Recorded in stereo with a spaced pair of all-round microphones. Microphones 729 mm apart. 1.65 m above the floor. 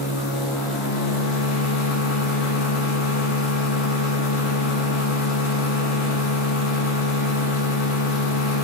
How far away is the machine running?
About 1.2 m.